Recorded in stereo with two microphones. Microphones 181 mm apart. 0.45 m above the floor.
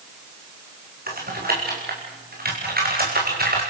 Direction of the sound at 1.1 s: 55° right (ahead or behind).